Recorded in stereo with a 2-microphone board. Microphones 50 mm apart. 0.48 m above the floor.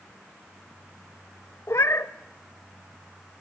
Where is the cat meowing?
70° left (ahead or behind), 1.1 m.